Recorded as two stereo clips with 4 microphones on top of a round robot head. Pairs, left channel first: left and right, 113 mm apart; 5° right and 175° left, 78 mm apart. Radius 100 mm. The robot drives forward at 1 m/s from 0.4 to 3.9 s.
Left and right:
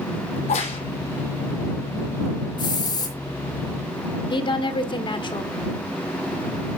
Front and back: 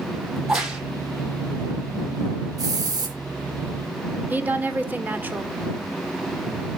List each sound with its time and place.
0.4 s a crack: 90° left, 3 m; by 0.8 s 100° left, 3 m
2.6 s a hiss: 135° left, 4 m; by 3.2 s 145° left, 4.5 m
4.3 s a woman speaking: 115° left, 1.7 m